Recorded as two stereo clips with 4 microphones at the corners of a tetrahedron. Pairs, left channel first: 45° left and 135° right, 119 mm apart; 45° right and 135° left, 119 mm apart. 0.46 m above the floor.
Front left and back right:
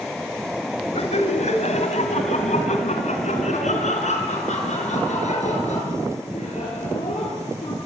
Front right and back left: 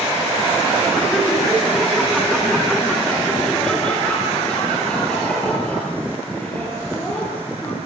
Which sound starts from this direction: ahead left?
Laughter, at 0.9 s.